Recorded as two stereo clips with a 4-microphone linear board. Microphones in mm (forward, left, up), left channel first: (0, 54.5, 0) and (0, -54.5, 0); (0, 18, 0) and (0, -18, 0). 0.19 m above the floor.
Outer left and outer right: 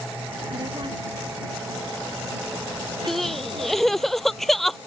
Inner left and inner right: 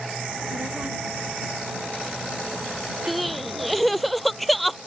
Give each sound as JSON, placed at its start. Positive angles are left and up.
{"t": 0.3, "sound": "a child speaking", "side_deg": -45}
{"t": 3.1, "sound": "crying", "side_deg": 5}